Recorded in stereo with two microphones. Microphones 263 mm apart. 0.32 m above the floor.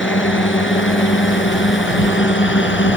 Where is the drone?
45° left (ahead or behind).